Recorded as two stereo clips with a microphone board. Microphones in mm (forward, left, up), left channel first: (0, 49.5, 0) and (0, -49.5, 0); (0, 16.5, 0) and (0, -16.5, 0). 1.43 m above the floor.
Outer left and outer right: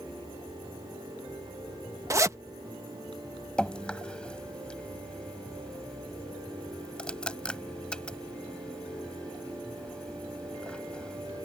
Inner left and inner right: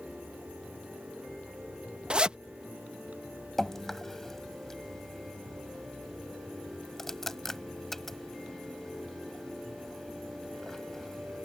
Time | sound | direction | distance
2.1 | a zipper | 30° right (ahead or behind) | ?
3.6 | dripping | 10° left (ahead or behind) | ?